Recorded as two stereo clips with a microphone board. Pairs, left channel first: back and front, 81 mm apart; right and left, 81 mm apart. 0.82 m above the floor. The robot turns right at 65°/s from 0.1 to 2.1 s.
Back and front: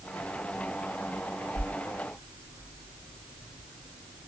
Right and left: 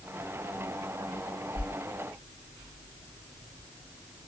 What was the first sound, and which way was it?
A whoosh, 150° left.